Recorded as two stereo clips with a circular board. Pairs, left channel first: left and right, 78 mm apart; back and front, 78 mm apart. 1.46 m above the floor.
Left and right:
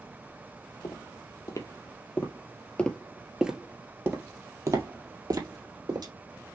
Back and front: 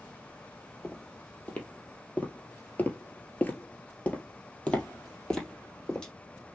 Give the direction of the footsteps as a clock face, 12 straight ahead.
8 o'clock.